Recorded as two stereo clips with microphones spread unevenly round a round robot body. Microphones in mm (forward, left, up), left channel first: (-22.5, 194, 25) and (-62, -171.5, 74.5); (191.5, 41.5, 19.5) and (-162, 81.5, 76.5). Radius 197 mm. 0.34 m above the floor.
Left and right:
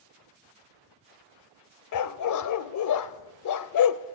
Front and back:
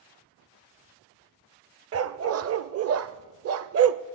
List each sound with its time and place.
1.9 s a dog barking: 120° left, 0.6 m